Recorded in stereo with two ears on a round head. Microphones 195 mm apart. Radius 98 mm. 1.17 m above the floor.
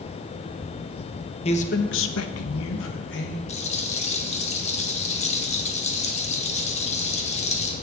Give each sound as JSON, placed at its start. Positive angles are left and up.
{"t": 1.4, "sound": "a man speaking", "side_deg": 25, "distance_m": 1.1}
{"t": 3.5, "sound": "a rattle", "side_deg": 30, "distance_m": 1.5}